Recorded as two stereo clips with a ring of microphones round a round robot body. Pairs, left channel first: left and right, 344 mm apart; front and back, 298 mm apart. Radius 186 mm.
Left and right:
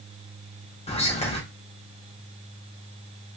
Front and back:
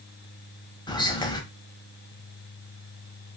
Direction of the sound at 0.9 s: 50° left.